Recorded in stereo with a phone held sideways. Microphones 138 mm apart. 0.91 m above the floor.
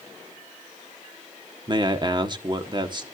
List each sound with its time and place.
1.7 s a man speaking: 35° right (ahead or behind), 1.4 m